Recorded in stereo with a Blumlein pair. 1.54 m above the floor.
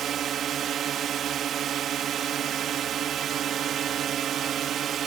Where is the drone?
25° right.